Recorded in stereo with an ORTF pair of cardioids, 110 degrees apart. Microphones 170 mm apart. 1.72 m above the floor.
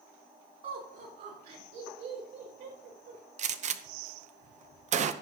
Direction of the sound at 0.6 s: 55° right.